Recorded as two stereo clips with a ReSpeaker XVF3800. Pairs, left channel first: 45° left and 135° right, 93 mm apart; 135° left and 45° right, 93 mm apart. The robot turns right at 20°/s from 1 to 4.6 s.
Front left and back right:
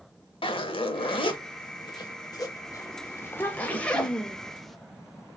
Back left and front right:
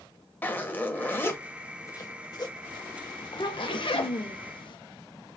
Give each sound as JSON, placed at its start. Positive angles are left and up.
{"t": 0.4, "sound": "a zipper", "azimuth_deg": 65, "distance_m": 0.7}
{"t": 3.2, "sound": "a child speaking", "azimuth_deg": 105, "distance_m": 0.6}